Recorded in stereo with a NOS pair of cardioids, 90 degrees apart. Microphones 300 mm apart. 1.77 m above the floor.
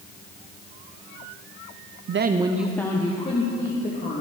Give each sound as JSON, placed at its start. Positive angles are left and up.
{"t": 2.1, "sound": "a woman speaking", "azimuth_deg": -50, "distance_m": 0.8}